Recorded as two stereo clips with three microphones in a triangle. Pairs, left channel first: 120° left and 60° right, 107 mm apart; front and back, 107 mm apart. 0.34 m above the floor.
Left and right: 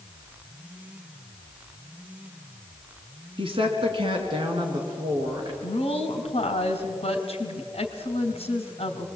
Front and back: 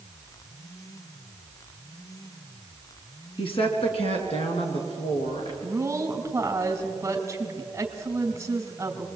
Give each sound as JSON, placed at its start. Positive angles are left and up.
{"t": 3.4, "sound": "a woman speaking", "azimuth_deg": -30, "distance_m": 3.0}
{"t": 5.6, "sound": "a woman speaking", "azimuth_deg": 115, "distance_m": 2.5}